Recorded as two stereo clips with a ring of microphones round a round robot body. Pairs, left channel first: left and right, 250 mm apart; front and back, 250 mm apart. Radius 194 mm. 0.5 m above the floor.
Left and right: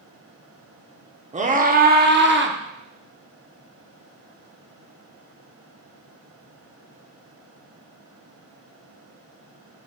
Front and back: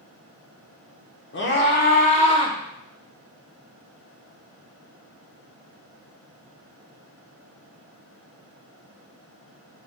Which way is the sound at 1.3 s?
30° right.